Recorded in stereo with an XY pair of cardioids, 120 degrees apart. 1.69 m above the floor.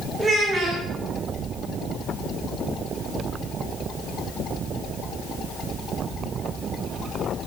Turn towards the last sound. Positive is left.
turn(degrees=-15)